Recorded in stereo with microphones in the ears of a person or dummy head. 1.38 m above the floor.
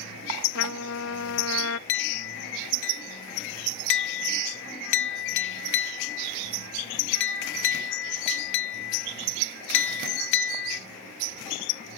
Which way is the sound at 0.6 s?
60° left (ahead or behind).